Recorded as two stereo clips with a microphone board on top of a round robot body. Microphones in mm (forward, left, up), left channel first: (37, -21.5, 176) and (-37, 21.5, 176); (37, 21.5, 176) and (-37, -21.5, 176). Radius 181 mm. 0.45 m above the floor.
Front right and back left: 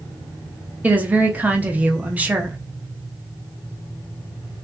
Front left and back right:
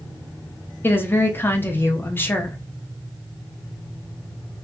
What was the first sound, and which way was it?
A woman speaking, 85° left.